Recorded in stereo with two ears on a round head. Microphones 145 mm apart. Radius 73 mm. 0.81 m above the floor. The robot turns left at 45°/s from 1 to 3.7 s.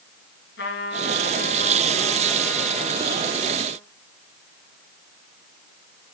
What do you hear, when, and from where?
0.6 s a trumpet: 70° left, 5 m; by 3.8 s 50° right, 5 m